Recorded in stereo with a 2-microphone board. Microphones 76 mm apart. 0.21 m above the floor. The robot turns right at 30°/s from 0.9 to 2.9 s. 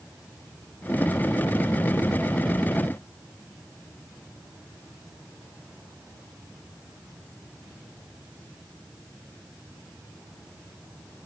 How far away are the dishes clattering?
No dishes clattering in this recording.